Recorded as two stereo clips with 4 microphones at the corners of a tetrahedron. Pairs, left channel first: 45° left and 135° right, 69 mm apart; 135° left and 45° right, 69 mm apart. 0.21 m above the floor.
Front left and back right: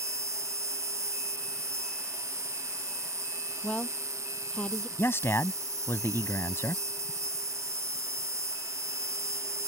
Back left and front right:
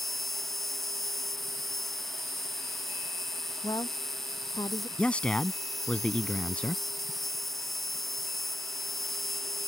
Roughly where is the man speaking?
Left.